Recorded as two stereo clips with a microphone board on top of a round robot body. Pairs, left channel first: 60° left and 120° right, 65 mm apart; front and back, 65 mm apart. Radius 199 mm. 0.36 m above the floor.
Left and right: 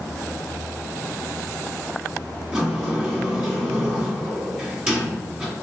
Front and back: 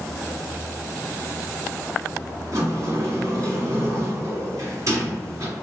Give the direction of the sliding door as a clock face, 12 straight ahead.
7 o'clock.